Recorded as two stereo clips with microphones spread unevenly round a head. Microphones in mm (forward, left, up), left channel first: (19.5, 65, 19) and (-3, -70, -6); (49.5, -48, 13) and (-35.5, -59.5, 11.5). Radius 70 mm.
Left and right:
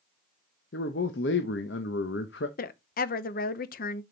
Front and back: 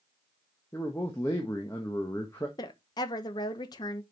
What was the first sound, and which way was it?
A man speaking, 80° left.